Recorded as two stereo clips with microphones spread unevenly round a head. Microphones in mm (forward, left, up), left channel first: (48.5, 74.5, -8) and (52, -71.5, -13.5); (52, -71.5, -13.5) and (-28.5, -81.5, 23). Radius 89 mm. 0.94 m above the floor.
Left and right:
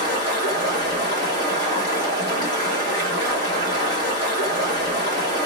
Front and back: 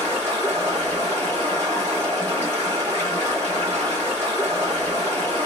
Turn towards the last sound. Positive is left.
turn(degrees=110)